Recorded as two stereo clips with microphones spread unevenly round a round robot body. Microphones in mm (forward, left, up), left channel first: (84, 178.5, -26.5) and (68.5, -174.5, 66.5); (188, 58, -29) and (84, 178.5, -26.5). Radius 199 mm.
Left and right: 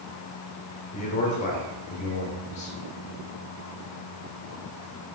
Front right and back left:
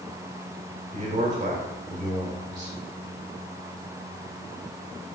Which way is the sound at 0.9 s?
130° left.